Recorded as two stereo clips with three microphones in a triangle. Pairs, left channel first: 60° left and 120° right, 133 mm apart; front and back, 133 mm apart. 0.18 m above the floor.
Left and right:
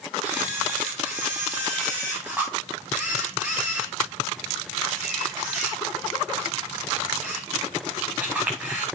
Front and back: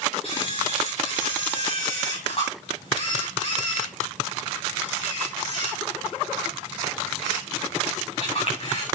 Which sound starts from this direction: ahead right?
A camera shutter, at 0.2 s.